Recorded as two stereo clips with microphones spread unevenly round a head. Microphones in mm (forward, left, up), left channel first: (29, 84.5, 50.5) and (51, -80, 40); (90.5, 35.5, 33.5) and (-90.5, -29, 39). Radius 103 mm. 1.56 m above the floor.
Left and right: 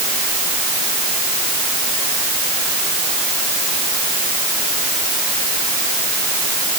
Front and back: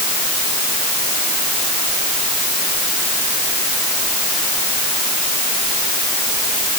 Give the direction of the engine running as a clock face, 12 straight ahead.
No engine running in this recording.